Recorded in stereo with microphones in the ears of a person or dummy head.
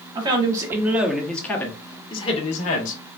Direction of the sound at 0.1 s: 30° right (ahead or behind).